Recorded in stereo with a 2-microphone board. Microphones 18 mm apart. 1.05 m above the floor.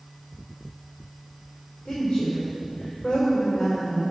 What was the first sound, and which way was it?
A woman speaking, 75° left (ahead or behind).